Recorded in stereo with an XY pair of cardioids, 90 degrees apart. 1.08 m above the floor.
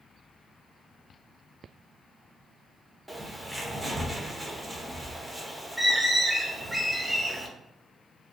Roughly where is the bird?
Ahead.